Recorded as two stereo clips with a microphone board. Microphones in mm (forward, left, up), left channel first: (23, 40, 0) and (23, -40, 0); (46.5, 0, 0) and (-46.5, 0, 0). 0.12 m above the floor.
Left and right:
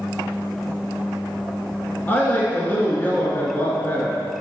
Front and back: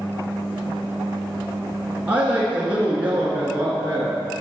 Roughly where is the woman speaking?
Behind left.